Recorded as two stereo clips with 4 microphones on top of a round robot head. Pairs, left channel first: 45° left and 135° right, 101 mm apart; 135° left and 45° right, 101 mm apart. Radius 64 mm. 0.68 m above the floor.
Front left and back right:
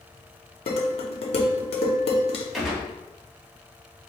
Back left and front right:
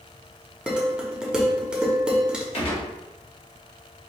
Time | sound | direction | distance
0.7 | dishes clattering | 35° left | 0.9 m
2.5 | a gunshot | 135° left | 1.5 m